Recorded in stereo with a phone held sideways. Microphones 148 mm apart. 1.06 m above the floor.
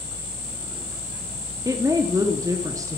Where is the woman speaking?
25° right (ahead or behind), 0.8 m.